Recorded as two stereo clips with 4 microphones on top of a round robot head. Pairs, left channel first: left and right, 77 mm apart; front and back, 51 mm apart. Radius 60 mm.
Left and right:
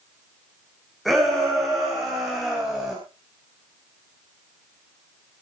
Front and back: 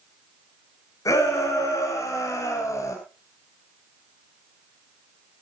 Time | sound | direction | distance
1.1 | a shout | 5° right | 6.5 m